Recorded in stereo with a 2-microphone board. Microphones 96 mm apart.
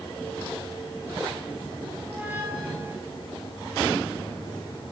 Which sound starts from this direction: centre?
A squeak, at 2.0 s.